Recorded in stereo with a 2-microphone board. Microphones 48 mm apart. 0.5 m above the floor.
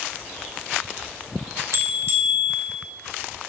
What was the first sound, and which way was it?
A bell, 65° right (ahead or behind).